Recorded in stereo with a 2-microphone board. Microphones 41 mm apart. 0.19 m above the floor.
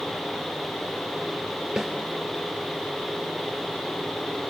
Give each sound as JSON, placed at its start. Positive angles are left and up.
{"t": 1.8, "sound": "a snare drum", "side_deg": -15, "distance_m": 3.5}